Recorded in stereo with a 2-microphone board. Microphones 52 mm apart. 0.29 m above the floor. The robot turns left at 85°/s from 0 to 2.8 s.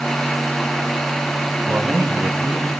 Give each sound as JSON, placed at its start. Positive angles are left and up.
{"t": 1.7, "sound": "a man speaking", "azimuth_deg": -95, "distance_m": 1.7}